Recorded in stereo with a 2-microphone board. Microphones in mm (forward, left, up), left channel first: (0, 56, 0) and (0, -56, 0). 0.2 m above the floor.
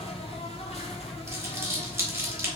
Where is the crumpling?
25° right (ahead or behind), 1.6 m.